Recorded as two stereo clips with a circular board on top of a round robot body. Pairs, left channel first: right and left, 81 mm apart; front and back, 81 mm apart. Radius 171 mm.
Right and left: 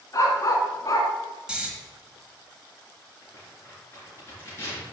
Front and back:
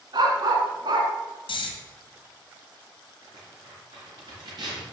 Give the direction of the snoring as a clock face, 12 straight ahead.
12 o'clock.